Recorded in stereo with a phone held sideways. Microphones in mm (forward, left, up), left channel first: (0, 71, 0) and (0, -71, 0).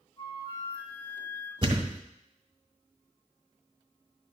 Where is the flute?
35° left (ahead or behind), 3.5 m.